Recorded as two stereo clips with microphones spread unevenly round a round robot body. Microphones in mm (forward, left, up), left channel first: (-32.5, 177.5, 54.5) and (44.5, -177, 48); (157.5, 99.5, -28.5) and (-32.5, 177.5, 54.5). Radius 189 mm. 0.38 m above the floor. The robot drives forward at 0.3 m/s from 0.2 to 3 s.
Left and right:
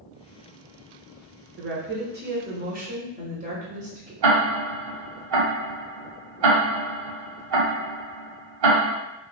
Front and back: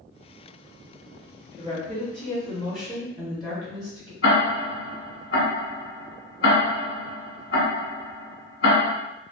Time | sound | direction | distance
1.6 | a woman speaking | 115° right | 1.0 m
4.2 | ticking | 50° right | 1.1 m